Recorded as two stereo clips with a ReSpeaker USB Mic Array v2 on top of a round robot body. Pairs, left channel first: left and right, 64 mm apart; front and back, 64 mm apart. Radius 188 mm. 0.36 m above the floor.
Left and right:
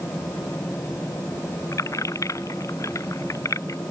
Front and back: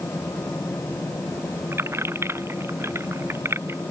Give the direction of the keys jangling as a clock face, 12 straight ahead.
8 o'clock.